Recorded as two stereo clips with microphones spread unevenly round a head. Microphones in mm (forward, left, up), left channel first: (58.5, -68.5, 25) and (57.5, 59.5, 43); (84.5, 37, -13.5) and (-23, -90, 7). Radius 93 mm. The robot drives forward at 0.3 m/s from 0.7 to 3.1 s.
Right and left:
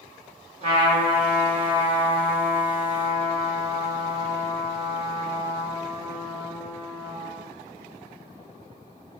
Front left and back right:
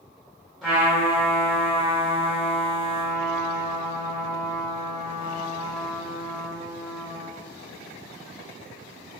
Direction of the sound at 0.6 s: 135° left.